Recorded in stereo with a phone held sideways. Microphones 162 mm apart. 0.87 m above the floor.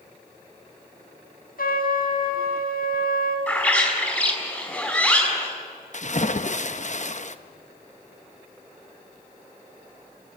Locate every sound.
1.6 s a trumpet: 75° left (ahead or behind), 3.5 m
3.5 s a bird: 10° left (ahead or behind), 4.5 m
5.9 s a splash: 55° left (ahead or behind), 0.9 m